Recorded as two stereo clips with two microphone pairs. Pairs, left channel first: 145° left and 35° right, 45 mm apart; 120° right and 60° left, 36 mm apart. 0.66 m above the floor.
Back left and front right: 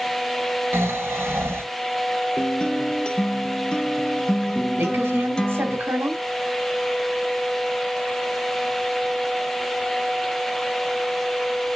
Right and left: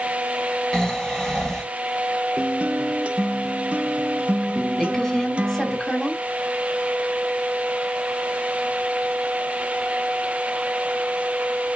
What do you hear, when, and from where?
0.7 s snoring: 50° right, 1.1 m
2.4 s a guitar: 80° left, 0.7 m
4.8 s a woman speaking: 55° right, 1.8 m